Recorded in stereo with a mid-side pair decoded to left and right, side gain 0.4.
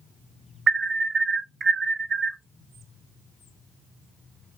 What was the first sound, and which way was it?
An alarm, 45° right.